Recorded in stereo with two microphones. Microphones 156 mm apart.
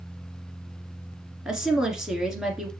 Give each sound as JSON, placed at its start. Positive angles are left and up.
{"t": 1.4, "sound": "a woman speaking", "side_deg": -5, "distance_m": 1.8}